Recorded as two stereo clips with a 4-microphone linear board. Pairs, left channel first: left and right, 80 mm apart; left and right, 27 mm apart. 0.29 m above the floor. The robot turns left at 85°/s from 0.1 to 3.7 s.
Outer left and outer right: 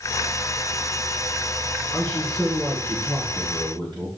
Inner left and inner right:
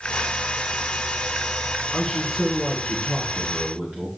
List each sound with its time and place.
1.9 s a man speaking: 40° left, 4 m; by 4.1 s 110° right, 4 m